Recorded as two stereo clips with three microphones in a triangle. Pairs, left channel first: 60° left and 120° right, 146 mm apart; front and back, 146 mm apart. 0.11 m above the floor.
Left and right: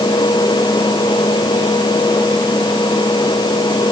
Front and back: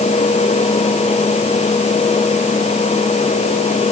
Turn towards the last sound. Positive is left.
No sound to turn to.